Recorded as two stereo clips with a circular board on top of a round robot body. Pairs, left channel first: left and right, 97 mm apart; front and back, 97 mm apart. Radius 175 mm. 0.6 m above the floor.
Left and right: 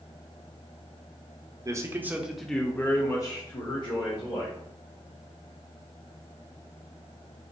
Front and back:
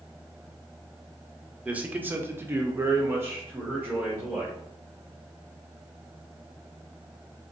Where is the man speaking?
110° right, 0.8 m; by 4.6 s 110° left, 1.3 m.